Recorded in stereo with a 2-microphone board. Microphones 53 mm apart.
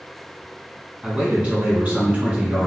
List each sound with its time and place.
1.0 s a man speaking: 25° right (ahead or behind), 1.4 m; by 2.7 s 30° right (ahead or behind), 1.7 m